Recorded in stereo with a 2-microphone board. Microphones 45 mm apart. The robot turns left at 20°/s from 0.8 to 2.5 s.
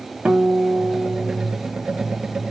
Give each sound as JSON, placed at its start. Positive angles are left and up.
{"t": 0.2, "sound": "a guitar", "side_deg": -20, "distance_m": 1.8}